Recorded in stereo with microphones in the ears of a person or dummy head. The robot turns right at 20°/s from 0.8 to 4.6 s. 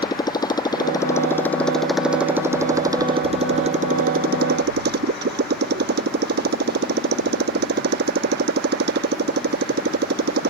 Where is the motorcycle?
160° left; by 10.5 s 125° right.